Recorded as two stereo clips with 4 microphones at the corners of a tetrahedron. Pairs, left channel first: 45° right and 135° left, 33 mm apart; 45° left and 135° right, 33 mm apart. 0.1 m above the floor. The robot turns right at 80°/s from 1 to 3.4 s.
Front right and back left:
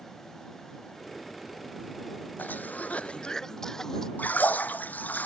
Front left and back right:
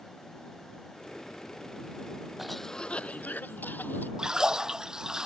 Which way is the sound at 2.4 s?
50° right.